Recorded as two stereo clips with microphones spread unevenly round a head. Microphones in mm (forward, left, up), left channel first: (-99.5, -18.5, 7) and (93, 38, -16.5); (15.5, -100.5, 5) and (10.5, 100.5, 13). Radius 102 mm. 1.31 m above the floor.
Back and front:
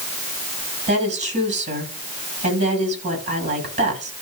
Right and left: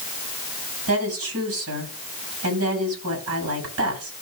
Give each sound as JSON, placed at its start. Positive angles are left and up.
{"t": 0.9, "sound": "a woman speaking", "azimuth_deg": 75, "distance_m": 8.0}